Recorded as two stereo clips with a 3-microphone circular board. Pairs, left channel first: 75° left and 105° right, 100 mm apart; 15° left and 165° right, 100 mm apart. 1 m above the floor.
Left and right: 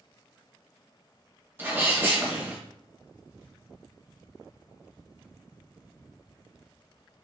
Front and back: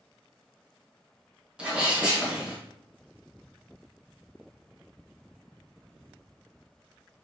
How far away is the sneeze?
About 0.8 m.